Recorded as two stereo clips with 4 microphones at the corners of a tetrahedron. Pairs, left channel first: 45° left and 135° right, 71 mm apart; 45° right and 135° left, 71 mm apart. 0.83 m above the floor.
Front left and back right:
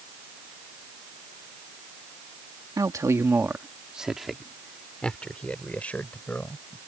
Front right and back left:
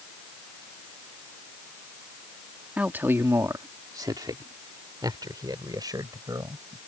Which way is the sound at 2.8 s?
155° right.